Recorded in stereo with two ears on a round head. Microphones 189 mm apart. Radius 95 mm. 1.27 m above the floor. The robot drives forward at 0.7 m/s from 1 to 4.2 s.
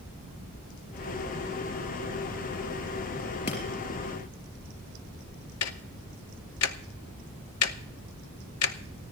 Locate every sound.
3.5 s breaking glass: 35° left (ahead or behind), 4 m
5.6 s ticking: 75° left (ahead or behind), 0.6 m